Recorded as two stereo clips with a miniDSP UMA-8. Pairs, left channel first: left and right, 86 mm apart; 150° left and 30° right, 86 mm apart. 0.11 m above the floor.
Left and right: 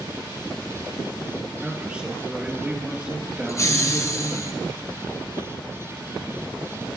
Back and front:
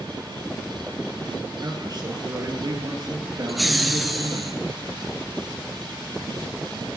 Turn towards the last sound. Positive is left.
turn(degrees=60)